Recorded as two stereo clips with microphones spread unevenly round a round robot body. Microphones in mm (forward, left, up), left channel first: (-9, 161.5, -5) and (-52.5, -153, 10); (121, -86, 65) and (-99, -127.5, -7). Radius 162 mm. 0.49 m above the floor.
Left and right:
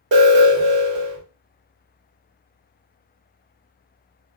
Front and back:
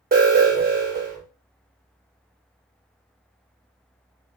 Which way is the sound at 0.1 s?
155° right.